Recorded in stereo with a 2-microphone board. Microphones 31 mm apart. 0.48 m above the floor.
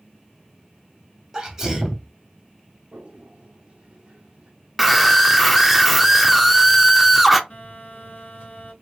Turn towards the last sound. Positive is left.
turn(degrees=60)  # may be behind; listen again after turning